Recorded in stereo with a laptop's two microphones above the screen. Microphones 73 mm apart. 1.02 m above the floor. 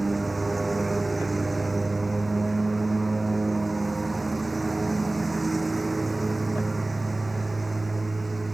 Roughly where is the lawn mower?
Centre.